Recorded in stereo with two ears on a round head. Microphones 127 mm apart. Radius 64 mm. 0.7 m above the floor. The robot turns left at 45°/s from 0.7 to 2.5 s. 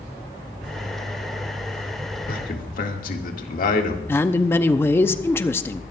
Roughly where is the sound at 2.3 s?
Left.